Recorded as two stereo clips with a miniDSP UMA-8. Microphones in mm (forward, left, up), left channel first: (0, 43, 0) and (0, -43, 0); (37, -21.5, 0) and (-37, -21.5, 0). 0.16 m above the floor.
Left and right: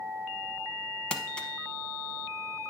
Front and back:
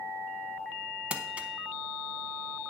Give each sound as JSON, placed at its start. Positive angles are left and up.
{"t": 1.1, "sound": "crumpling", "azimuth_deg": 145, "distance_m": 0.7}